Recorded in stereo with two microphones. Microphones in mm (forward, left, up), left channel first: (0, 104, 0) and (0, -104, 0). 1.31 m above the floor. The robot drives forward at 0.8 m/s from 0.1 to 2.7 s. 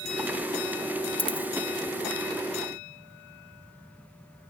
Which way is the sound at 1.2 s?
25° left (ahead or behind).